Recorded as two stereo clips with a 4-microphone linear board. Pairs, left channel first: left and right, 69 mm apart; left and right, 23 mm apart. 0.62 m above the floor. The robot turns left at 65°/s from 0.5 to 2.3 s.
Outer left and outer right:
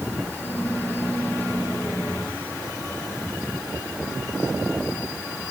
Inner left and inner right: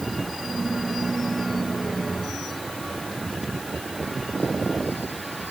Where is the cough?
I don't hear a cough.